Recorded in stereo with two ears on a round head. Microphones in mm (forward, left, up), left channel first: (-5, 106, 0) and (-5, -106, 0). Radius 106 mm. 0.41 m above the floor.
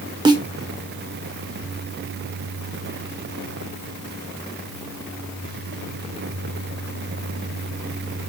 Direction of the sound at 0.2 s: 20° right (ahead or behind).